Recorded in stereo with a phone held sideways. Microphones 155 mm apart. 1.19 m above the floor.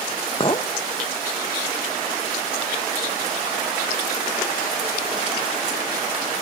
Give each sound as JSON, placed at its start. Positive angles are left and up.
{"t": 0.4, "sound": "a clink", "side_deg": 35, "distance_m": 0.6}